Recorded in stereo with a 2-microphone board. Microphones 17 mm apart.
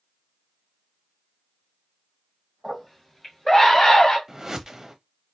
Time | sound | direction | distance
2.6 | a scream | 10° left (ahead or behind) | 2.5 m
4.3 | a whoosh | 30° right (ahead or behind) | 0.8 m